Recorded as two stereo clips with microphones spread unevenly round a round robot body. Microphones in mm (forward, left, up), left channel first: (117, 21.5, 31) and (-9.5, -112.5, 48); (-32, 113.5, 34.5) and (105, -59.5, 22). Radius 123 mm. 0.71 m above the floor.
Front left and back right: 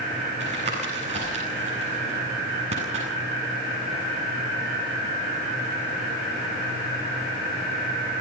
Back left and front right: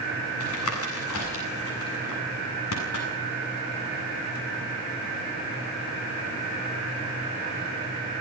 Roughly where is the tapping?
Behind.